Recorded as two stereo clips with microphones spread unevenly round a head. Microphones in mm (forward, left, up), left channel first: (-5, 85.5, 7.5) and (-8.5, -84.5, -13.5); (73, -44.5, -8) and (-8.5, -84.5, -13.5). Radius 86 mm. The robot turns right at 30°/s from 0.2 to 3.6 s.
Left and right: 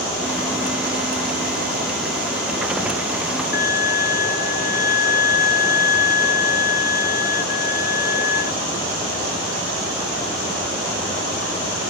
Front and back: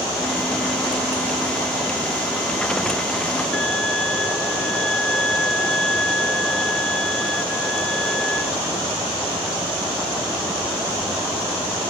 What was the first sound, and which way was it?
A violin, 110° left.